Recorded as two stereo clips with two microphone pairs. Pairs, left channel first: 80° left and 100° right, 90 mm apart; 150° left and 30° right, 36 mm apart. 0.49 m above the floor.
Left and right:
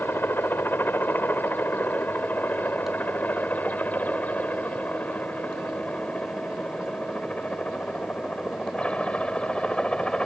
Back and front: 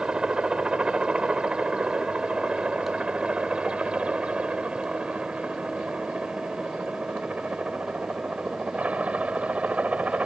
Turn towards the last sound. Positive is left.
turn(degrees=5)